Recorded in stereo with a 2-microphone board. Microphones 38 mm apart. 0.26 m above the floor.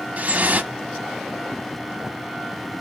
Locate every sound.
0.2 s dripping: 40° right (ahead or behind), 0.7 m